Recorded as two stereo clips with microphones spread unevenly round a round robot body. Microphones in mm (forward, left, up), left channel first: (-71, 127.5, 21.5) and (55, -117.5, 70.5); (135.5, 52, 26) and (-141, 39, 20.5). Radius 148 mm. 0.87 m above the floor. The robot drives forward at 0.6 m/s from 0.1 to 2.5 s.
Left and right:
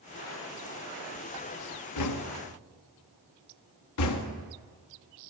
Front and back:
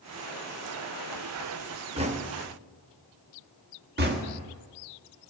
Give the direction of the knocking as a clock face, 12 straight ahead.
8 o'clock.